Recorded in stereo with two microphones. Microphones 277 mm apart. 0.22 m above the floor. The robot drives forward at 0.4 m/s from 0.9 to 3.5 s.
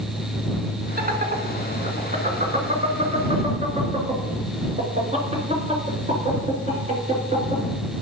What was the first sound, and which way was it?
Laughter, 35° right (ahead or behind).